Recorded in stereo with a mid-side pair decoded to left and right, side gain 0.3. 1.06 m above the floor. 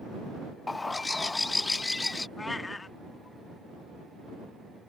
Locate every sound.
0.7 s a bird: 35° left
2.4 s a cat meowing: 35° left